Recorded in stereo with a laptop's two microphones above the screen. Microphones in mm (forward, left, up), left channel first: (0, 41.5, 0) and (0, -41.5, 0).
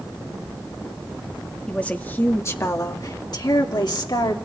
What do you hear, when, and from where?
1.7 s a woman speaking: 15° left (ahead or behind), 1.8 m; by 4.4 s 70° left (ahead or behind), 3 m